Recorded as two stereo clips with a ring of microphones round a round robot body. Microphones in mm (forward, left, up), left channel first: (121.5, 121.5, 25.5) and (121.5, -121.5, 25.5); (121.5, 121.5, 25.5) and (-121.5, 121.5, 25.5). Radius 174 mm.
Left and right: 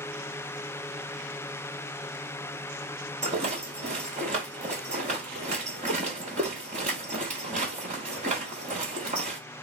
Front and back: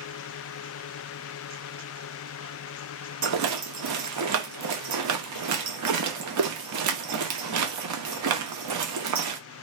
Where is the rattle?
160° right, 0.7 m.